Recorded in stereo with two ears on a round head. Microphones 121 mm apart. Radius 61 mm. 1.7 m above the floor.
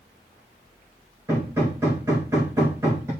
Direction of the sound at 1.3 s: 20° right (ahead or behind).